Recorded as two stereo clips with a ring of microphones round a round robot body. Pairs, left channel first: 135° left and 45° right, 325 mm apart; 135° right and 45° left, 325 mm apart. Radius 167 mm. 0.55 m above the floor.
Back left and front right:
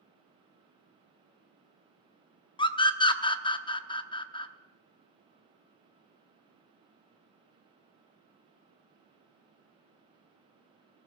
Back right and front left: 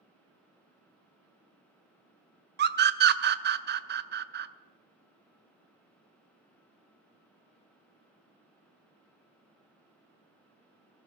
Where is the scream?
70° left, 0.7 m.